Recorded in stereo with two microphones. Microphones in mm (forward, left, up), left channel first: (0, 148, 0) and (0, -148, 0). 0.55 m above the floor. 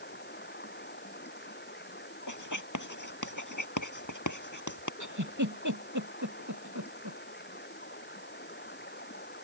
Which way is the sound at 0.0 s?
35° left (ahead or behind).